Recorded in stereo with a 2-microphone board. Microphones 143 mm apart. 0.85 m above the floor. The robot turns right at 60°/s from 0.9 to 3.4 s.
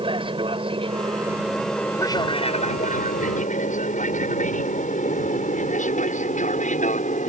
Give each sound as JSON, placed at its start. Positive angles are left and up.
{"t": 0.0, "sound": "an aircraft", "side_deg": -40}